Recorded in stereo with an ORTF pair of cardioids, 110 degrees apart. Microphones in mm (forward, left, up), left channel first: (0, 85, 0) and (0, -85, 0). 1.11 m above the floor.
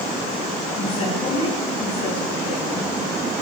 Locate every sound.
0.8 s a woman speaking: 35° left, 9.5 m